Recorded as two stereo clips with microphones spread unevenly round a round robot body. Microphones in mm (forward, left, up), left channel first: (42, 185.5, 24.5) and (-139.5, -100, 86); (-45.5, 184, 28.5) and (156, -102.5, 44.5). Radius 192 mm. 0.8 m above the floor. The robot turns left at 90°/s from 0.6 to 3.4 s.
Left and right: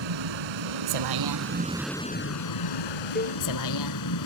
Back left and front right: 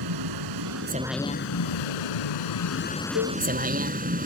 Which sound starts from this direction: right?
A vehicle, at 0.0 s.